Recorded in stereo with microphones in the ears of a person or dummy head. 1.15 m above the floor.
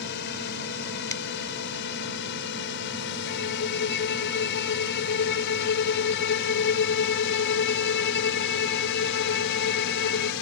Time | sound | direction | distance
0.0 | a drone | 60° left (ahead or behind) | ?
1.1 | a finger snap | 20° left (ahead or behind) | ?
3.3 | a violin | 60° left (ahead or behind) | ?